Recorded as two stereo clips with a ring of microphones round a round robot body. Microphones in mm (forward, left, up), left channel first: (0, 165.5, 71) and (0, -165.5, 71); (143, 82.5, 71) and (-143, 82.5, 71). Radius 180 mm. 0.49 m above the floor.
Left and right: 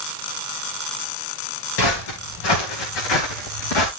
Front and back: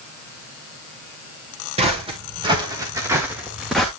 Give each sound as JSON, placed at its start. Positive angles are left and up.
{"t": 1.8, "sound": "footsteps", "azimuth_deg": 110, "distance_m": 4.0}